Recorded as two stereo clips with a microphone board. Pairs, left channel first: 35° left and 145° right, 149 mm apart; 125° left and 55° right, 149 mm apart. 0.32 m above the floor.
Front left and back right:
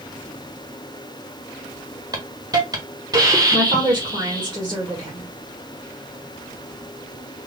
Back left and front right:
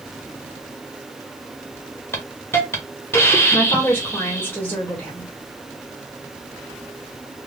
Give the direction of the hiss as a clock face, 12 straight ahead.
6 o'clock.